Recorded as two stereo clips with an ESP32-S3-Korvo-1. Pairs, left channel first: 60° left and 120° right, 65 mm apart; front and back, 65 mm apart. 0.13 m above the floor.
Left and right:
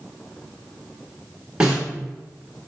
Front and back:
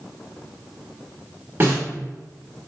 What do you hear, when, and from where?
1.6 s a snare drum: straight behind, 1.5 m